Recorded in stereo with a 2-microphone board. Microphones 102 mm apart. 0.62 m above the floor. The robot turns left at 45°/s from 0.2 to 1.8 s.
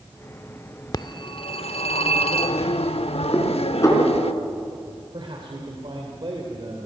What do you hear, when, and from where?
0.9 s a phone ringing: 135° left, 0.8 m; by 4.3 s 95° left, 0.8 m
3.3 s dishes clattering: 30° left (ahead or behind), 4.5 m
5.1 s a man speaking: 55° right (ahead or behind), 2.5 m